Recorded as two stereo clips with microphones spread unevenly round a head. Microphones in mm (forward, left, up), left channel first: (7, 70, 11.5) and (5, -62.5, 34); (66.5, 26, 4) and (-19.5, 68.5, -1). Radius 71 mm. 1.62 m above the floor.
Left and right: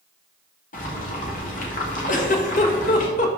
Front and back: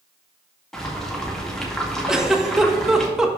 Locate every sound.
0.7 s boiling: 55° left, 1.9 m
2.1 s a giggle: 70° left, 1.1 m